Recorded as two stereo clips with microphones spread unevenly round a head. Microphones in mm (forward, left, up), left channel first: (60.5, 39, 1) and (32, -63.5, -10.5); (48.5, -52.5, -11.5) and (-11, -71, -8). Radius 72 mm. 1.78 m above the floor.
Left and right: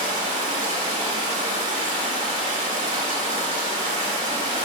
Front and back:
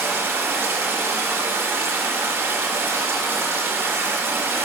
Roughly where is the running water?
Behind right.